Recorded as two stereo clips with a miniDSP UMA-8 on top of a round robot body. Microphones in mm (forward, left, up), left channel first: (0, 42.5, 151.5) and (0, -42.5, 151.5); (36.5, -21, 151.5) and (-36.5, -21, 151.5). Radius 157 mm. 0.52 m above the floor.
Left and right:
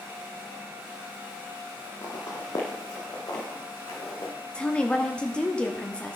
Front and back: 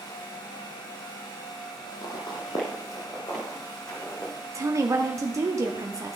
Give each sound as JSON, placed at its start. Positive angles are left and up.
{"t": 2.0, "sound": "footsteps", "azimuth_deg": 35, "distance_m": 1.1}
{"t": 4.5, "sound": "a woman speaking", "azimuth_deg": 165, "distance_m": 0.8}